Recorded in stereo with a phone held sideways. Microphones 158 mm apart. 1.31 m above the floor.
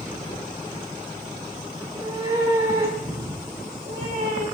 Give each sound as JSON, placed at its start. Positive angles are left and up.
{"t": 1.8, "sound": "a cat meowing", "side_deg": -30, "distance_m": 6.5}